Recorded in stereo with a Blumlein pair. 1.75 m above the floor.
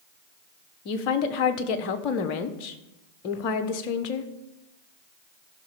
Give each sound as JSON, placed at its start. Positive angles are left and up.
{"t": 0.8, "sound": "a woman speaking", "azimuth_deg": 40, "distance_m": 1.2}